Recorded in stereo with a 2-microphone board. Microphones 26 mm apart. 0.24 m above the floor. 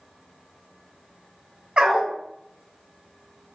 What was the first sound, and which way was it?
A dog barking, 35° right (ahead or behind).